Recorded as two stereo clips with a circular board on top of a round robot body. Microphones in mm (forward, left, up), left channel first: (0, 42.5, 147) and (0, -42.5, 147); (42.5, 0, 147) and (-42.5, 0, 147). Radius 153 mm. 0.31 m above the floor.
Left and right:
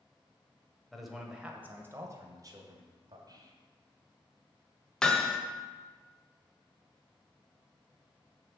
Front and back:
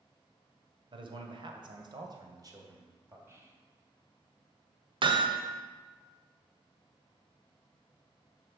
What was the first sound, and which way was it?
A man speaking, straight behind.